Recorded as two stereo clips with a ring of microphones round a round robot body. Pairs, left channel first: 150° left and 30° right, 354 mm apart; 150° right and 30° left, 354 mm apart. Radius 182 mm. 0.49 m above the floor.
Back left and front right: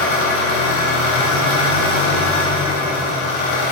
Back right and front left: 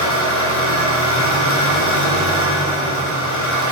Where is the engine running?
155° left, 3 m.